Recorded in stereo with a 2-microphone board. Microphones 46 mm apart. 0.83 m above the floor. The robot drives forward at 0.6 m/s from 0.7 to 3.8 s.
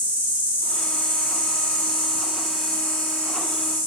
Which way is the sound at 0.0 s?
35° right (ahead or behind).